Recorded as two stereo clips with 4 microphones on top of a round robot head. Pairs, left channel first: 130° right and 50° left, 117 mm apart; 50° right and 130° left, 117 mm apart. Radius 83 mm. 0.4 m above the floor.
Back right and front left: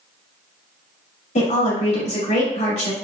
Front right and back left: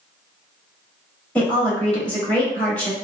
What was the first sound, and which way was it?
A woman speaking, 130° right.